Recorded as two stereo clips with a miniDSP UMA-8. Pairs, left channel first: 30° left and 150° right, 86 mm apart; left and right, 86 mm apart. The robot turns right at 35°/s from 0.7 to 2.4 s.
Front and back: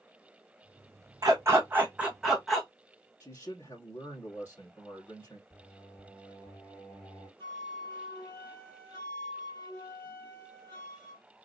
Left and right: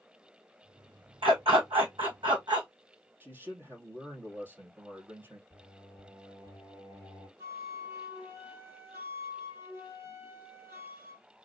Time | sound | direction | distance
1.2 | a dog barking | 100° right | 1.8 m
3.2 | a man speaking | 30° right | 3 m
5.5 | singing | 60° right | 3.5 m
7.4 | a flute | 30° right | 3.5 m